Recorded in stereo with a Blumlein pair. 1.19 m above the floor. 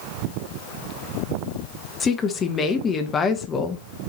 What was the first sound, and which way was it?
A woman speaking, 20° left.